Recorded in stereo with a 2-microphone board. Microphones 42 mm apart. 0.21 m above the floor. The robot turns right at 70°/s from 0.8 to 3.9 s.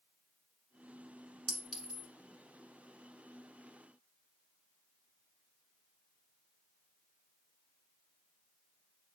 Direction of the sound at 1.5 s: 10° left (ahead or behind).